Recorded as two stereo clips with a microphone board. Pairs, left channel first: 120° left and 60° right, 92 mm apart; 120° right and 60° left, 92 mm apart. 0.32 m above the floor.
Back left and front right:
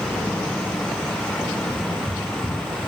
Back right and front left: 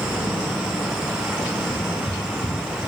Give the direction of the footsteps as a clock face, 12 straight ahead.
5 o'clock.